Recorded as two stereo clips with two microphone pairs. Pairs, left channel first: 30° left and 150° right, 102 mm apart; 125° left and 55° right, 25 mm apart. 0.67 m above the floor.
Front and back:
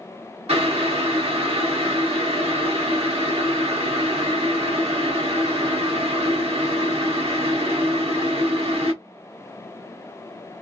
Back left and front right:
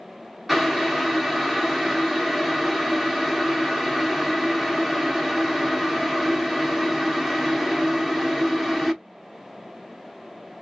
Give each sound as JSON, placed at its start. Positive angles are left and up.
{"t": 0.5, "sound": "boiling", "azimuth_deg": -140, "distance_m": 1.0}